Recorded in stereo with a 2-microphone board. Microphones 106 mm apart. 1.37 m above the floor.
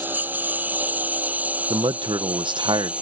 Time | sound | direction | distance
0.0 | a lawn mower | 15° right (ahead or behind) | ?
1.7 | a man speaking | 50° right (ahead or behind) | ?